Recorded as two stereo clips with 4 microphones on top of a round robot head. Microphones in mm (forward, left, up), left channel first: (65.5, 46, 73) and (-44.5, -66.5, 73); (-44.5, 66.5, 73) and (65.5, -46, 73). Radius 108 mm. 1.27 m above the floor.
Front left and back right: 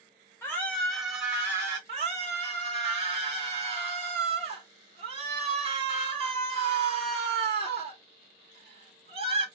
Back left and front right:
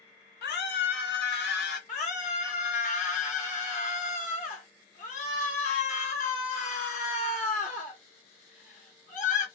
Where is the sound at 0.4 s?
120° left, 1.1 m; by 1.8 s 150° left, 1.5 m.